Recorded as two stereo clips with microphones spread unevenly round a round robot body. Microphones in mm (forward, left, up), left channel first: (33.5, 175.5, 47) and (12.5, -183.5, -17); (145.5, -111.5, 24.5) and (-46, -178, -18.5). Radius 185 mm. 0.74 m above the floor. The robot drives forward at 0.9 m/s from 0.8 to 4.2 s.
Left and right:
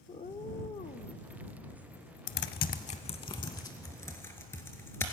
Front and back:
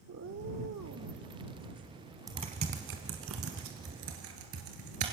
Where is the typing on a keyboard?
115° left, 0.7 m; by 5.1 s 165° left, 2 m.